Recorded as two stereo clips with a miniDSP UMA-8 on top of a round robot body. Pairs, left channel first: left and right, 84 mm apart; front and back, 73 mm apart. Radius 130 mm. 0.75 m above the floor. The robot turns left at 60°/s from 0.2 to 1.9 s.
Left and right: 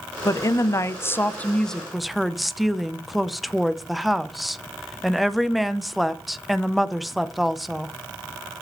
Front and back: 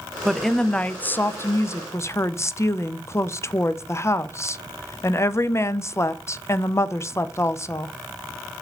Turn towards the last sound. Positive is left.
turn(degrees=0)